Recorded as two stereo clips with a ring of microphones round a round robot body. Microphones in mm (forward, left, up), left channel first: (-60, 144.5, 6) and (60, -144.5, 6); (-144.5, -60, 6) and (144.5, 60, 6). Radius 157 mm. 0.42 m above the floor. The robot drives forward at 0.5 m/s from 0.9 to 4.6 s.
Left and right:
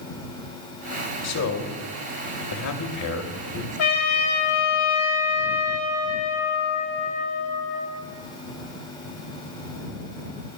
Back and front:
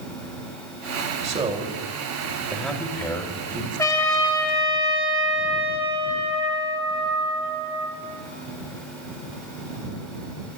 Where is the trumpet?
125° left, 2.5 m; by 7.9 s 130° left, 3 m.